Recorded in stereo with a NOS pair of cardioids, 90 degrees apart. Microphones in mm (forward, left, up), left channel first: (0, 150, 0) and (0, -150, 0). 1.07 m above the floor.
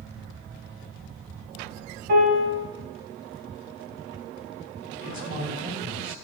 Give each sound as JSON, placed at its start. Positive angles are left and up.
{"t": 2.1, "sound": "a piano", "azimuth_deg": -60, "distance_m": 2.0}
{"t": 5.0, "sound": "a man speaking", "azimuth_deg": -70, "distance_m": 2.0}